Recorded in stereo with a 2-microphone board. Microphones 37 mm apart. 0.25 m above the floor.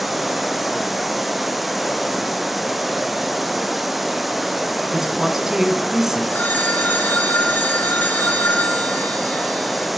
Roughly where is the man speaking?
Centre.